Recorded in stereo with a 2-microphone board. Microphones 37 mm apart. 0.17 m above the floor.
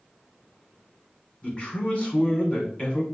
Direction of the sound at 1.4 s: 35° left (ahead or behind).